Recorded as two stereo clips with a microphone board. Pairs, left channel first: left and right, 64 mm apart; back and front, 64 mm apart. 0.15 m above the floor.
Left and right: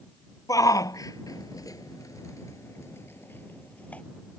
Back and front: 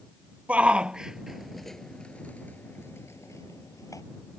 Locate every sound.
0.5 s a shout: 70° left; by 4.0 s 160° left